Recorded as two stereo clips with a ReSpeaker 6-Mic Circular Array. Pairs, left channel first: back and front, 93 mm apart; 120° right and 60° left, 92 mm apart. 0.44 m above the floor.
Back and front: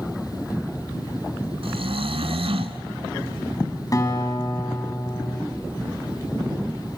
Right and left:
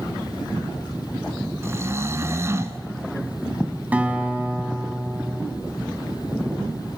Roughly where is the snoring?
Ahead.